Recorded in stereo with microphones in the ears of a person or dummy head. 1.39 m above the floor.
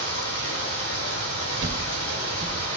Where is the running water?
75° left (ahead or behind), 2.5 m.